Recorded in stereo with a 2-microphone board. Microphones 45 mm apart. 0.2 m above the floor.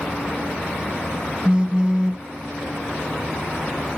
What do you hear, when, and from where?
1.4 s a phone buzzing: 20° right (ahead or behind), 0.8 m